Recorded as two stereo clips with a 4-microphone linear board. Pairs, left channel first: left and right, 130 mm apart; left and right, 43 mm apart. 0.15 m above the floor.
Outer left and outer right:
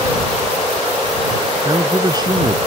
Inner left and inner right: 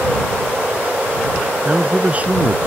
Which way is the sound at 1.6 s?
30° right (ahead or behind).